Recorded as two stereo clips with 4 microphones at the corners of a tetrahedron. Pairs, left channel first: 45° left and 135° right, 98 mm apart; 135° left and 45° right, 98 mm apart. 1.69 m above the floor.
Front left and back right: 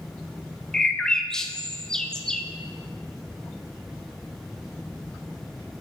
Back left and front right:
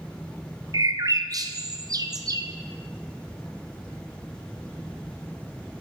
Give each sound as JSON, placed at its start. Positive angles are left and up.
{"t": 0.7, "sound": "a bird", "azimuth_deg": -35, "distance_m": 0.5}